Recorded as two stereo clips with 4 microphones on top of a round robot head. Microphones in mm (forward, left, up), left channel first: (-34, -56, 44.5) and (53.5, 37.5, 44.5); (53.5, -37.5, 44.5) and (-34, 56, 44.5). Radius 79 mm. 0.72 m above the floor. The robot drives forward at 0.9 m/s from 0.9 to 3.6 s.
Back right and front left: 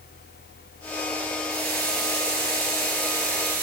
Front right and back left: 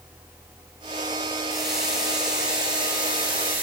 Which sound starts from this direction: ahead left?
A running tap, at 1.5 s.